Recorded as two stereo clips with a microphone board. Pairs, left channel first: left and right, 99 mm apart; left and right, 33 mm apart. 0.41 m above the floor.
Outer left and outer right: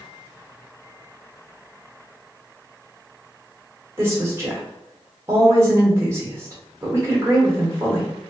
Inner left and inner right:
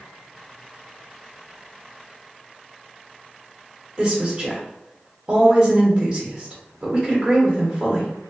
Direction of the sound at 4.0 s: 25° right (ahead or behind).